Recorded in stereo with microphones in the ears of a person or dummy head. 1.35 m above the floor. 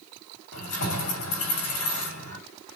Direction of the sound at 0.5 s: 85° left.